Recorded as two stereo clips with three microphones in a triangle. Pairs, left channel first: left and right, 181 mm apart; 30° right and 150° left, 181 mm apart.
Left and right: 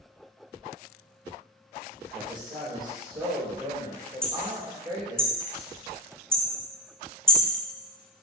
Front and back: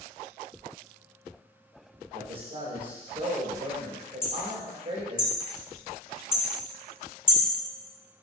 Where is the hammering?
5° left, 1.9 m.